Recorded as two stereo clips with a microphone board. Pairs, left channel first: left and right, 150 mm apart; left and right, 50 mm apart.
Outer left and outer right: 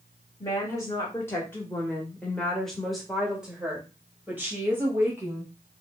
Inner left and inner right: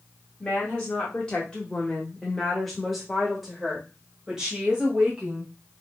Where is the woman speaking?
20° left (ahead or behind), 1.6 m; by 5.5 s 15° right (ahead or behind), 2 m.